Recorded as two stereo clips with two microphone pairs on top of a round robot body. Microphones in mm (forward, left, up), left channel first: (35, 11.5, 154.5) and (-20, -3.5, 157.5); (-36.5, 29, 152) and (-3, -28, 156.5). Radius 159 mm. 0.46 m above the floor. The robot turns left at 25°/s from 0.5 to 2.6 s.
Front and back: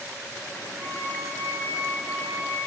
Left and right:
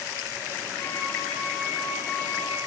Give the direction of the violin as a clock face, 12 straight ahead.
7 o'clock.